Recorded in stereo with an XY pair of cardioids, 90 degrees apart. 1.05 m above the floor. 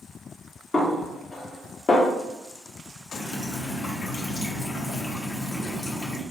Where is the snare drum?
45° left, 1.2 m.